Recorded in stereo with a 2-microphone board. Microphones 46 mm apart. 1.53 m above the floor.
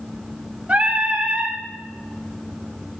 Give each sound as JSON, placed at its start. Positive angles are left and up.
{"t": 0.7, "sound": "singing", "side_deg": -30, "distance_m": 1.6}